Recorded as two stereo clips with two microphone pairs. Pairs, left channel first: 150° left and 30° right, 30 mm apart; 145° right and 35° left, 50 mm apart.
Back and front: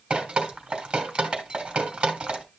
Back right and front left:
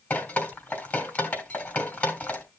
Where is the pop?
I don't hear a pop.